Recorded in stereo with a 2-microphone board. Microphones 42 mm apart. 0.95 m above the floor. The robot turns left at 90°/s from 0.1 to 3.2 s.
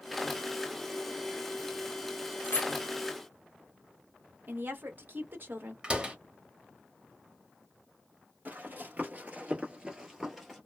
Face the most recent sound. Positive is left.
turn(degrees=5)  # may be behind; listen again after turning